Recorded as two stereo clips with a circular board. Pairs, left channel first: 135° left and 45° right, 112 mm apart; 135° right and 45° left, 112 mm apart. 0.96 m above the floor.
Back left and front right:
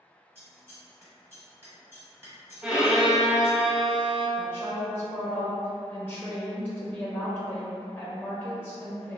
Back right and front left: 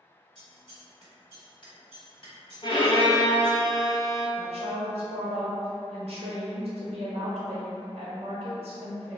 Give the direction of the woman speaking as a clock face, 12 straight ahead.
10 o'clock.